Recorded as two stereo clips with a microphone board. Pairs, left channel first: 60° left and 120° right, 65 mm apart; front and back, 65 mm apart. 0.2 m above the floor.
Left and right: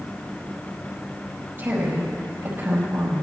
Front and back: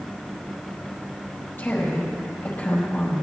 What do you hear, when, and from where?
1.6 s a woman speaking: 60° right, 4.5 m